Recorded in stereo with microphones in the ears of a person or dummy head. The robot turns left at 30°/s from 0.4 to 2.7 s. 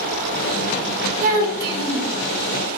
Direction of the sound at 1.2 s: 45° right (ahead or behind).